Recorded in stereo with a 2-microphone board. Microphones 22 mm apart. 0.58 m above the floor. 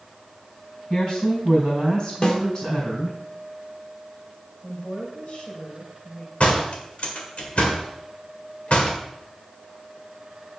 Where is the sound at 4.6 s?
45° left (ahead or behind), 3 m.